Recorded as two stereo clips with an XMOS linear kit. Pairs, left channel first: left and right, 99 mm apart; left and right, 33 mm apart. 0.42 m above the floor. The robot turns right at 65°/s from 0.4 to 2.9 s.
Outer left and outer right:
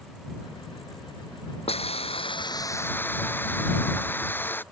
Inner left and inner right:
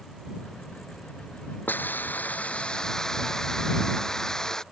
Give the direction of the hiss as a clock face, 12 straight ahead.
9 o'clock.